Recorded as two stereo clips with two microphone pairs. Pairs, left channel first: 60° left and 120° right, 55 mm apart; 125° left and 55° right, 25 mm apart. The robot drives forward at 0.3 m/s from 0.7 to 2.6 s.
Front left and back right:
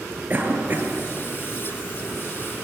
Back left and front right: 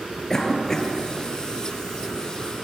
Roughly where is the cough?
Behind.